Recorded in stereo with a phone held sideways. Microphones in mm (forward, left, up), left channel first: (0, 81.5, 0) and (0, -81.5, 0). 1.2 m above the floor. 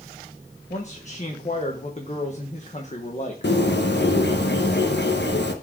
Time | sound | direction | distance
0.7 | a man speaking | 45° left (ahead or behind) | 1.2 m
3.4 | a bird | 85° left | 1.0 m